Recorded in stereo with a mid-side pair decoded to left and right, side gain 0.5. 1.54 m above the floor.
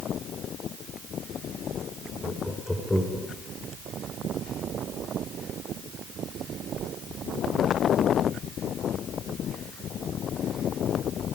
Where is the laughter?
10° left, 5 m; by 3.3 s 15° left, 5.5 m.